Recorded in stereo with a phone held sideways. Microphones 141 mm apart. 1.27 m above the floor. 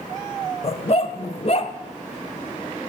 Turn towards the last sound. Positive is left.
turn(degrees=45)  # may be behind; listen again after turning